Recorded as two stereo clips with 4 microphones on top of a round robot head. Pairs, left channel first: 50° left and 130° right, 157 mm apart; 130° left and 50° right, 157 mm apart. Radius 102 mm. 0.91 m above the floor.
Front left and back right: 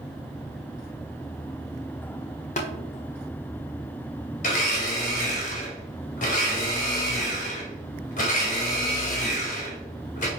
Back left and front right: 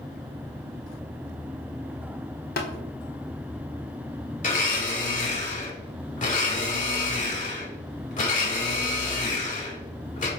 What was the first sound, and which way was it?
Tapping, 95° left.